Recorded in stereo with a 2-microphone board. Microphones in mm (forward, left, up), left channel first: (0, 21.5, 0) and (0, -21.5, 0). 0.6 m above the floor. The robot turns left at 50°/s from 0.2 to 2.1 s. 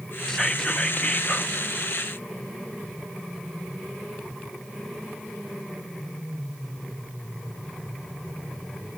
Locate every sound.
0.3 s whispering: 160° left, 0.8 m; by 1.6 s 95° left, 0.8 m